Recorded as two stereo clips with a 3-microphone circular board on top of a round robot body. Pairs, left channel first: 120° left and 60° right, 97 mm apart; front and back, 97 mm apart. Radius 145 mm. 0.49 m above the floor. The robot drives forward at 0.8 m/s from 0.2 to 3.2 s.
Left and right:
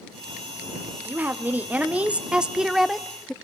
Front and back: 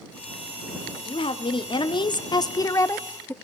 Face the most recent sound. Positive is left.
turn(degrees=40)